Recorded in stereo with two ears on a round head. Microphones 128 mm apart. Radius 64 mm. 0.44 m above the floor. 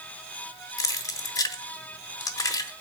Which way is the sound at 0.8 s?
25° left (ahead or behind).